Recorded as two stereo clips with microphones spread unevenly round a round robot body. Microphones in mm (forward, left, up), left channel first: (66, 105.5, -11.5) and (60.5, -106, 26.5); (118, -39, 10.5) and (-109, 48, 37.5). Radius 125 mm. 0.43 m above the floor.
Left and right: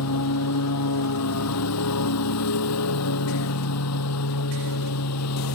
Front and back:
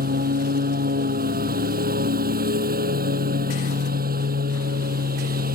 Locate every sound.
0.0 s a lawn mower: 105° left